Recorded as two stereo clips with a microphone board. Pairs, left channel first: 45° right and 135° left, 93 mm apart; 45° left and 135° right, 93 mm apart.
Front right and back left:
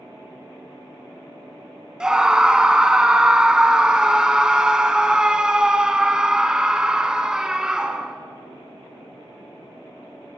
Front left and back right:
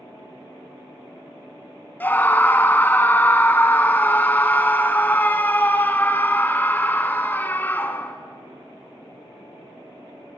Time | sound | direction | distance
2.0 | a scream | 65° left | 1.0 m